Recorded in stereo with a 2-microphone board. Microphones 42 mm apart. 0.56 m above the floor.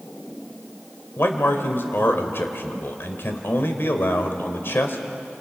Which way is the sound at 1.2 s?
60° left (ahead or behind).